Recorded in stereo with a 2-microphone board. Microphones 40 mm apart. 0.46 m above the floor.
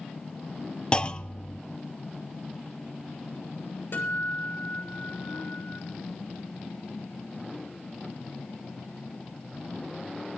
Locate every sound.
0.9 s a clunk: 30° left (ahead or behind), 0.7 m
3.9 s a guitar: 60° left (ahead or behind), 7 m